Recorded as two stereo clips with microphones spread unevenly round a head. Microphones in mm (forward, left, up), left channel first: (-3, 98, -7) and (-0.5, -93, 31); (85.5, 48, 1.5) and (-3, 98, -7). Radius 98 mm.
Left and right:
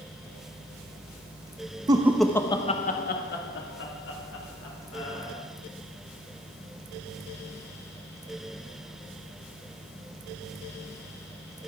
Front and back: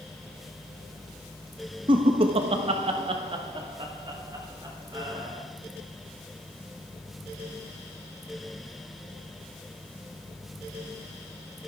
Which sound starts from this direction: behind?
Laughter, at 1.9 s.